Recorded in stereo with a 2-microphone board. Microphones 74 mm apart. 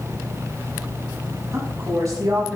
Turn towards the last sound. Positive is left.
turn(degrees=-45)  # may be behind; listen again after turning